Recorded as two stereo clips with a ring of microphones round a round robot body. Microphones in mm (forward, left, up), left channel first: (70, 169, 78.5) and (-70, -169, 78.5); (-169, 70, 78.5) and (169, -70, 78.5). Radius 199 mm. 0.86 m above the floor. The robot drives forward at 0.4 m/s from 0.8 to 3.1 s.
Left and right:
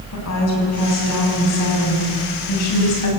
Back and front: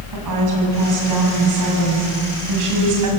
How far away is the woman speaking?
About 7.5 m.